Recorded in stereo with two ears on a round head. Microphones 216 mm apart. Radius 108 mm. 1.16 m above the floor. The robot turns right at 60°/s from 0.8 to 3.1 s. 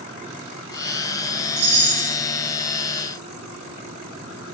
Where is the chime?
135° right, 1.4 m; by 2.1 s 100° right, 1.4 m.